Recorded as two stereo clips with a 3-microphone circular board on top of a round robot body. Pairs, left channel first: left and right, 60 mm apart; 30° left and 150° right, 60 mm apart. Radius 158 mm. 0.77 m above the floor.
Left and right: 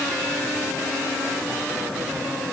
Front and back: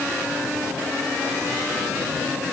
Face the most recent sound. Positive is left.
No sound to turn to.